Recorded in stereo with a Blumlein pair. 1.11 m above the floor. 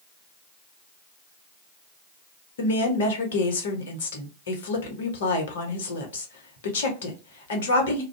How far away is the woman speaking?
About 1.0 m.